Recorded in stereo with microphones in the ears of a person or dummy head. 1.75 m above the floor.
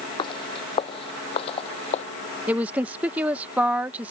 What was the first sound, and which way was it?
Footsteps, 25° left (ahead or behind).